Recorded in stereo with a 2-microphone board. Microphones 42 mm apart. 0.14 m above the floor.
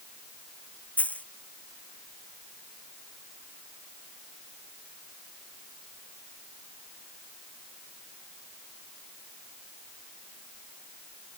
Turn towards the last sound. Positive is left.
turn(degrees=35)  # may be behind; listen again after turning